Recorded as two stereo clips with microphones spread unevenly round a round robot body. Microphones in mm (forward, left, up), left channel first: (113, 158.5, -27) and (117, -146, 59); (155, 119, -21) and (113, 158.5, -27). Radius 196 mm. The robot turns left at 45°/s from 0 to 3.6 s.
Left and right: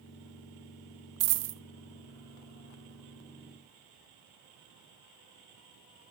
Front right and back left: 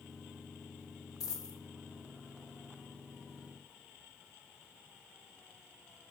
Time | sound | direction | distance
1.2 | a dropped coin | 65° right | 0.6 m